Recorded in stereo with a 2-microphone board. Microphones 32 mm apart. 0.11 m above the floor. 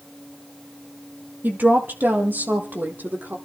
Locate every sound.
1.4 s a woman speaking: 65° right (ahead or behind), 3.5 m; by 3.4 s 70° right (ahead or behind), 4.5 m